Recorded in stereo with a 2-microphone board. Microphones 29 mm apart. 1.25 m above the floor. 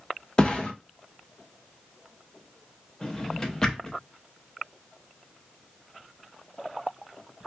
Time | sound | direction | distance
0.4 | a thud | 30° left (ahead or behind) | 0.6 m
3.0 | a drawer | 25° left (ahead or behind) | 0.7 m